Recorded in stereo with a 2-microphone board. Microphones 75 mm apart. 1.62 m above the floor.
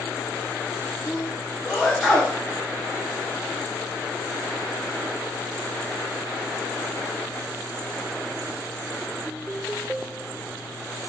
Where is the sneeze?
5° left (ahead or behind), 1.4 m.